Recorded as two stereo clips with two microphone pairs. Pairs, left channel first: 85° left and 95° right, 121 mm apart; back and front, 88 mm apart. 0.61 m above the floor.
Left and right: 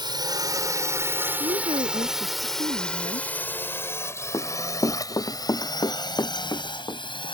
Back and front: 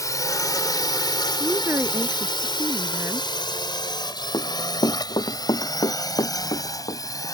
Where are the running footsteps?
145° left.